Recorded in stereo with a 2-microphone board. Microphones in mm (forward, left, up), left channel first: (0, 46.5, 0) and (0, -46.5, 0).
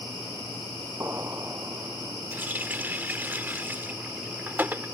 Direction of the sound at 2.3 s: 20° right (ahead or behind).